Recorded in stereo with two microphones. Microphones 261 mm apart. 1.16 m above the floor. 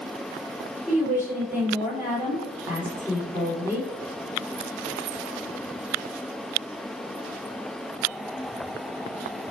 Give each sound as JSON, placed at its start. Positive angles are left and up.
{"t": 0.9, "sound": "a woman speaking", "side_deg": -10, "distance_m": 3.0}